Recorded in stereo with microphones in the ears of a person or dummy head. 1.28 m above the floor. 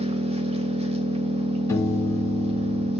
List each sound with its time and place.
0.0 s an engine running: 35° right (ahead or behind), 0.7 m
1.7 s a piano: 15° left (ahead or behind), 0.8 m